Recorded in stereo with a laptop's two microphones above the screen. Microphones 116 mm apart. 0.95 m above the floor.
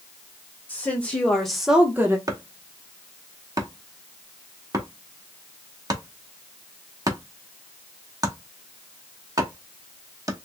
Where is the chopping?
30° right (ahead or behind), 0.9 m.